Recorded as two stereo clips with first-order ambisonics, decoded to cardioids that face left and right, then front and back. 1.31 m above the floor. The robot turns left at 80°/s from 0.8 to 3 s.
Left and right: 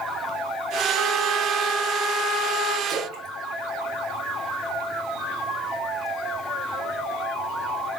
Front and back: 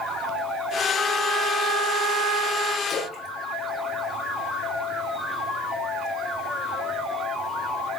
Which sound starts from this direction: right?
A trumpet, at 0.9 s.